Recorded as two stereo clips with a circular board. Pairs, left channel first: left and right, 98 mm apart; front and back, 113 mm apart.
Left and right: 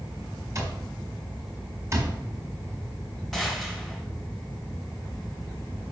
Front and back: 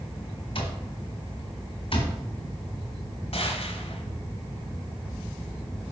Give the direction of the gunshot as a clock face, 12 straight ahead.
12 o'clock.